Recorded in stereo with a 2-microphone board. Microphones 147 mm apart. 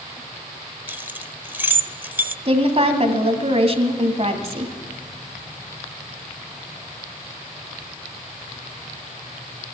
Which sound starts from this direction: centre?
Keys jangling, at 0.9 s.